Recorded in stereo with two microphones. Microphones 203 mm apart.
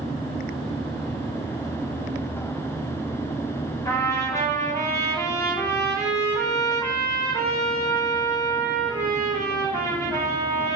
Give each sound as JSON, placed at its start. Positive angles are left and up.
{"t": 3.9, "sound": "a trumpet", "side_deg": 15, "distance_m": 5.5}